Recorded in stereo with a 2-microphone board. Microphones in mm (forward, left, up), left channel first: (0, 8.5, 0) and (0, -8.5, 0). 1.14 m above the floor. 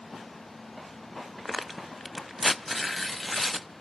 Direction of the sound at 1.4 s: 5° right (ahead or behind).